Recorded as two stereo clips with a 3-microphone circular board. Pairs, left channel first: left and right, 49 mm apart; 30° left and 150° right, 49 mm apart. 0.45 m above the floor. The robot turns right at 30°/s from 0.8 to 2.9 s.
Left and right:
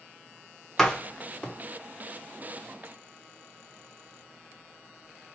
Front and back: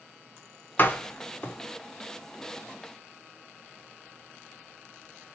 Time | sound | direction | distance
0.8 | a door slam | 15° left | 0.6 m